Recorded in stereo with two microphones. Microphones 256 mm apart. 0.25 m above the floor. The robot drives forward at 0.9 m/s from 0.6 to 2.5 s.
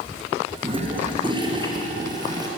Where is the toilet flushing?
20° right (ahead or behind), 4 m; by 2.5 s 15° right (ahead or behind), 5.5 m.